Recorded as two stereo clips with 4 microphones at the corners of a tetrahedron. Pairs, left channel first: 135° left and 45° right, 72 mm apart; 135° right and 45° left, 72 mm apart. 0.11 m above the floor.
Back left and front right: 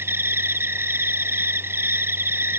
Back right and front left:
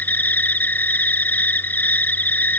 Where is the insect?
80° right.